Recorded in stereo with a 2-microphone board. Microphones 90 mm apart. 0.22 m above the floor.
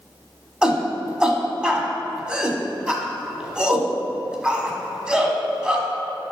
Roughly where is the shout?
Centre.